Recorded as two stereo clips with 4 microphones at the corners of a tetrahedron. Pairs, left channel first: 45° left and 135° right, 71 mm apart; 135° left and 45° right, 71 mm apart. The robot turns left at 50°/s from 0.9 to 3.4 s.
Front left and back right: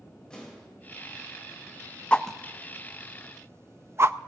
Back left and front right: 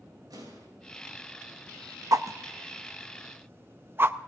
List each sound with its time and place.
0.3 s an explosion: 35° right, 5.5 m
2.1 s a whoosh: 25° right, 0.6 m; by 4.2 s 90° right, 0.6 m